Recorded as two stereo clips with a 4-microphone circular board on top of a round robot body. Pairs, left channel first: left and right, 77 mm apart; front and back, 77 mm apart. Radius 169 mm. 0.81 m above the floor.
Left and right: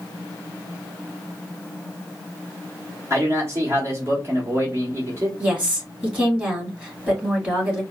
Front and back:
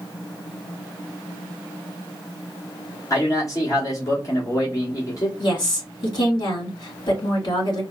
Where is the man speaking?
40° right, 1.6 m.